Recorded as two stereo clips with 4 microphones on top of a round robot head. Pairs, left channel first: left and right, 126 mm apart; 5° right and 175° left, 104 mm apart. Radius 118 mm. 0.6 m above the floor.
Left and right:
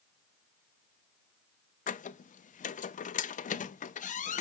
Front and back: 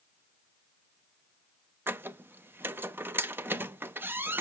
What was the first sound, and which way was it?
A squeak, 105° left.